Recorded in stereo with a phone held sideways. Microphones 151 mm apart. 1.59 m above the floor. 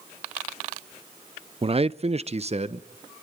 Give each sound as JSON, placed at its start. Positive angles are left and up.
{"t": 1.6, "sound": "a man speaking", "side_deg": -40, "distance_m": 0.5}